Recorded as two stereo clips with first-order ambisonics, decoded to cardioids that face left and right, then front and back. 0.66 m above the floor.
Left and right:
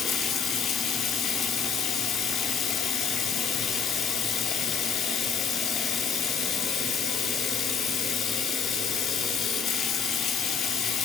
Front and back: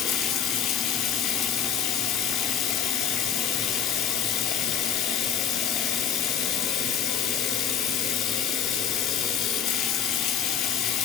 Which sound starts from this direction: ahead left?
Running water, at 0.0 s.